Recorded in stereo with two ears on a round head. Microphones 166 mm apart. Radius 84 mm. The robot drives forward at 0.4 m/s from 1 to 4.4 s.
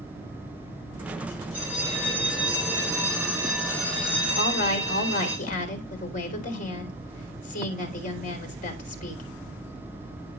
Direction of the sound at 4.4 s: 50° left (ahead or behind).